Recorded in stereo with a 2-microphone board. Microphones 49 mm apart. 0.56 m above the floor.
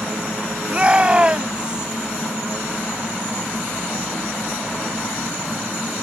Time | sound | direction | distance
0.7 | a shout | 25° right (ahead or behind) | ?